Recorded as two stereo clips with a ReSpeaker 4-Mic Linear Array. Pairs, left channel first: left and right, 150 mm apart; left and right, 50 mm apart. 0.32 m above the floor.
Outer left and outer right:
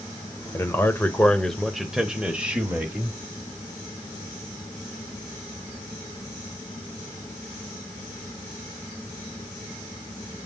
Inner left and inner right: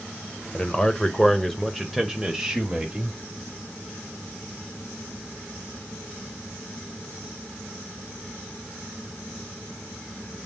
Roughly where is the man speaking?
Centre.